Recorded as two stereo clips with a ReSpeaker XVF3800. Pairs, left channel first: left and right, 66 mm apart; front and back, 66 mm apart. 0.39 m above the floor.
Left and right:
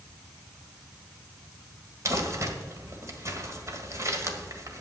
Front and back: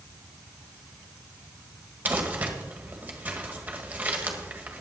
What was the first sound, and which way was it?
Crumpling, 120° right.